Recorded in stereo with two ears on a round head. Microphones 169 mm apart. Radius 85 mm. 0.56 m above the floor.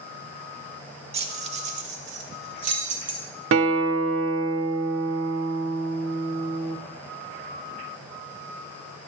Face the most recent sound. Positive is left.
turn(degrees=-75)  # may be behind; listen again after turning